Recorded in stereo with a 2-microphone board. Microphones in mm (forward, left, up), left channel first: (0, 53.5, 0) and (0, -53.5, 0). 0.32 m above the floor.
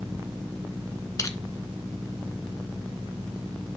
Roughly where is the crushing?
Left.